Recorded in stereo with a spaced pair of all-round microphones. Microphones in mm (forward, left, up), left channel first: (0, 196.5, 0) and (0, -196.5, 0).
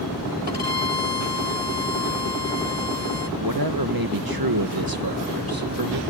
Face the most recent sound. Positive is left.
turn(degrees=-60)  # may be behind; listen again after turning